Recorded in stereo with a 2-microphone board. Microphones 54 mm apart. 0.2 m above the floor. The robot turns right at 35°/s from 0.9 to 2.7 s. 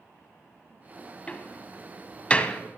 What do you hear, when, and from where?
1.3 s a door slam: 25° left (ahead or behind), 0.7 m; by 2.6 s 20° left (ahead or behind), 0.7 m